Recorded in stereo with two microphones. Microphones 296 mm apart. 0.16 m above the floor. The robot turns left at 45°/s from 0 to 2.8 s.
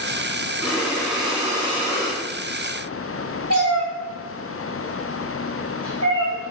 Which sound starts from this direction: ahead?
Breathing, at 0.6 s.